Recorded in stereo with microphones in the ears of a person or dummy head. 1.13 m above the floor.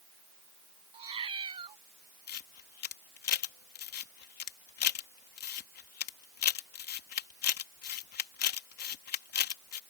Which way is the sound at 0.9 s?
25° right (ahead or behind).